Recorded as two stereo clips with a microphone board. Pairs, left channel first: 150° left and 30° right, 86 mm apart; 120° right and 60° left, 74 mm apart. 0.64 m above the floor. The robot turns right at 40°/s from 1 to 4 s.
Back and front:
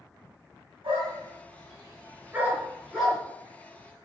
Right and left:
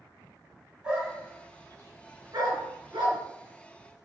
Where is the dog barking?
15° right, 3.5 m; by 3.2 s 70° left, 3.5 m.